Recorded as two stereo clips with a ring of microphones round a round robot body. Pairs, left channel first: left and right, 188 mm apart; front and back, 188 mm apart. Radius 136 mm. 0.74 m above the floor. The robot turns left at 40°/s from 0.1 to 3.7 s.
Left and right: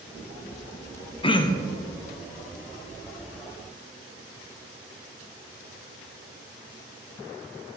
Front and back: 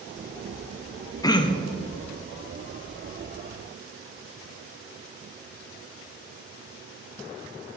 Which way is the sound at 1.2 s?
55° left.